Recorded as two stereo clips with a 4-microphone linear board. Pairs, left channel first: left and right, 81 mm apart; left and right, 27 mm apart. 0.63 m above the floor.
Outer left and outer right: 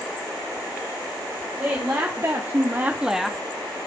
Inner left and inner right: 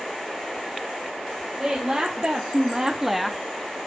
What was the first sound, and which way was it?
A woman speaking, 40° right (ahead or behind).